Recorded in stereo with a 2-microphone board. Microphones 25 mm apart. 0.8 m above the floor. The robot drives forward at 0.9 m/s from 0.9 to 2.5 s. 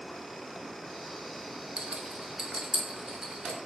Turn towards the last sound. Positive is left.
turn(degrees=-40)  # may be behind; listen again after turning